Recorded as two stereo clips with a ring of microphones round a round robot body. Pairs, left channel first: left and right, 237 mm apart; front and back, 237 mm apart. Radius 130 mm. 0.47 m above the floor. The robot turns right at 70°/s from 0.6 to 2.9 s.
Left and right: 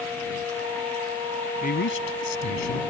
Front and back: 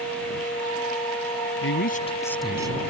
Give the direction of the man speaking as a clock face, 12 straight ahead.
11 o'clock.